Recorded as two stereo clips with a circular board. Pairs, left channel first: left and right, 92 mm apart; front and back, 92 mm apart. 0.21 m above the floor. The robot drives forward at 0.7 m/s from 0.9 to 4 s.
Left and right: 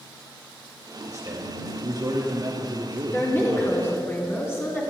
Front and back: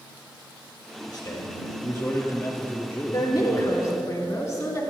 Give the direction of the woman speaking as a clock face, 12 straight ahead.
11 o'clock.